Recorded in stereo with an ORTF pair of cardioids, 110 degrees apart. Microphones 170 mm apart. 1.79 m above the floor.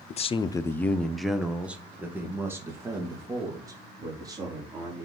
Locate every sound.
0.1 s a man speaking: 45° left, 0.8 m; by 5.0 s 25° right, 5 m